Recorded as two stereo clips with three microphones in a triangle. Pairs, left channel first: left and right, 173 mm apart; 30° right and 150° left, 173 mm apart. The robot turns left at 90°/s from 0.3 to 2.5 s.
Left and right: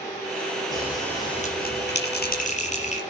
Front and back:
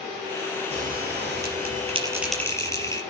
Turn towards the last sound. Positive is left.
turn(degrees=45)